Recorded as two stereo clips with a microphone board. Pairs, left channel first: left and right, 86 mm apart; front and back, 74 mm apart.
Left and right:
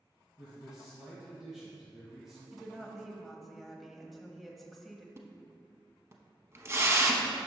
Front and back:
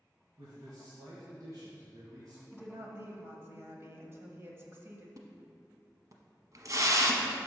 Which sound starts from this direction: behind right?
A splash, at 5.2 s.